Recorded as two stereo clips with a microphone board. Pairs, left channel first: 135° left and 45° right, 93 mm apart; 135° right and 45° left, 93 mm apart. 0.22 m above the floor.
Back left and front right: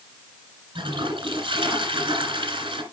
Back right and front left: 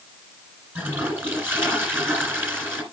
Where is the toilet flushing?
25° right, 1.9 m.